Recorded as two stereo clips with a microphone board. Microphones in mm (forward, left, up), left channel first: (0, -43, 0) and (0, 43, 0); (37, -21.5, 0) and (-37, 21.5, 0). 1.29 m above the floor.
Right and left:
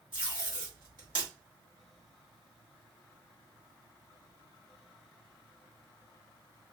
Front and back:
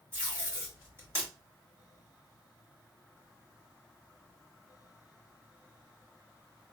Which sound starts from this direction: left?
Tape being pulled, at 0.1 s.